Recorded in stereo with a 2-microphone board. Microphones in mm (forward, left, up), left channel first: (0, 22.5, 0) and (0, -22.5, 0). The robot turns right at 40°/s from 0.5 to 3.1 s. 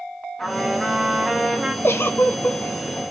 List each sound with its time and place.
0.4 s a trumpet: 10° left (ahead or behind), 1.1 m; by 1.7 s 15° right (ahead or behind), 1.1 m
1.8 s a giggle: 105° left, 0.6 m; by 2.6 s 135° left, 0.6 m